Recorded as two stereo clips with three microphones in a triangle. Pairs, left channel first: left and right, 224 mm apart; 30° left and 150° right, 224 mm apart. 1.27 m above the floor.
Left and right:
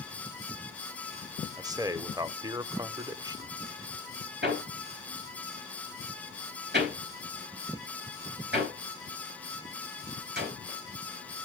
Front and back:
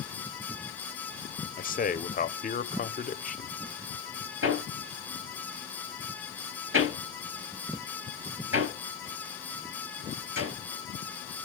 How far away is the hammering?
About 3.5 m.